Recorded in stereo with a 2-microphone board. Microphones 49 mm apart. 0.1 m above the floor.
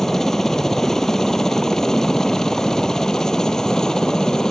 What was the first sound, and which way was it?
A helicopter, 10° left (ahead or behind).